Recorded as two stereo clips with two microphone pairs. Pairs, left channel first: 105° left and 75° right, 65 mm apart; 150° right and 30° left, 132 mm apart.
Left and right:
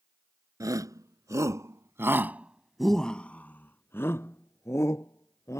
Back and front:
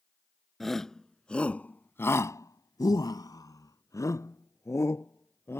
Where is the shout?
60° right; by 5.6 s 140° left.